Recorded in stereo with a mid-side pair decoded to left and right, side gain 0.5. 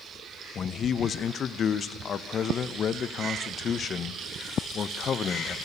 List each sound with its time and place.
0.6 s a man speaking: 50° left, 0.7 m